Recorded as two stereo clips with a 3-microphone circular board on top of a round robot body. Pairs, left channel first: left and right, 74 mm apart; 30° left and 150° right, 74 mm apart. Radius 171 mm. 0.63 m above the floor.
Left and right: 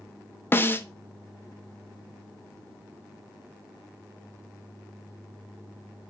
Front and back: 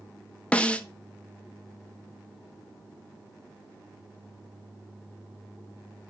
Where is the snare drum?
85° left, 1.0 m.